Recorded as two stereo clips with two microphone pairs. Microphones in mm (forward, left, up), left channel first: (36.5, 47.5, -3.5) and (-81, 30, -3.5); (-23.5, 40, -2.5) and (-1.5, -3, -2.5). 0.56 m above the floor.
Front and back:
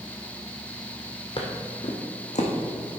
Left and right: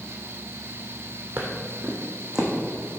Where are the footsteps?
25° right, 1.4 m; by 2.5 s 15° left, 2 m.